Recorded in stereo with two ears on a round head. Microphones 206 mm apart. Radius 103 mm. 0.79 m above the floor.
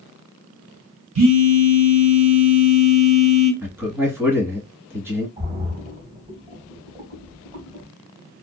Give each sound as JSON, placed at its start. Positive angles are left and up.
{"t": 1.1, "sound": "a phone buzzing", "side_deg": -80, "distance_m": 1.2}
{"t": 3.6, "sound": "a man speaking", "side_deg": -10, "distance_m": 1.4}
{"t": 5.4, "sound": "a splash", "side_deg": -40, "distance_m": 2.0}